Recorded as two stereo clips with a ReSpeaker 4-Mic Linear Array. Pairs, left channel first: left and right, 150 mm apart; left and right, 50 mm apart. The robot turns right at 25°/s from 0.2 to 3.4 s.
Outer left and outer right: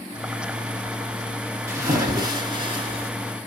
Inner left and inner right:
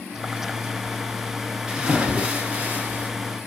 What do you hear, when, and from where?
1.7 s a splash: 155° right, 1.0 m; by 3.1 s 120° right, 1.0 m